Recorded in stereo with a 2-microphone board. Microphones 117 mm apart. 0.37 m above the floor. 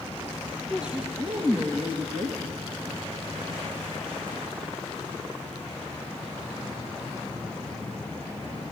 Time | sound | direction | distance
0.7 | a woman speaking | 5° right (ahead or behind) | 3.5 m